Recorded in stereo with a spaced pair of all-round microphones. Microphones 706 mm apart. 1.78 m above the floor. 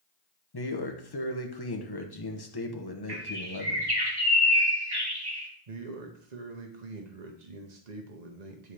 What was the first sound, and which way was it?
A man speaking, 35° left (ahead or behind).